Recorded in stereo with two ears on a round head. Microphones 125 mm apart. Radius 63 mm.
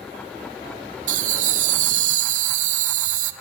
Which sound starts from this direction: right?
Laughter, at 1.1 s.